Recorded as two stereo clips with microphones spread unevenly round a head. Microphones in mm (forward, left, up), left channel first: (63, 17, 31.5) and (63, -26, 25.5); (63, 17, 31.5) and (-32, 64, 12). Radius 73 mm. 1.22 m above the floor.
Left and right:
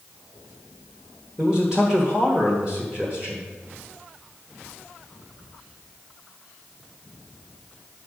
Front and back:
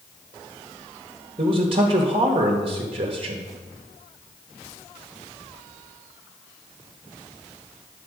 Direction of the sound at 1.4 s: 165° right.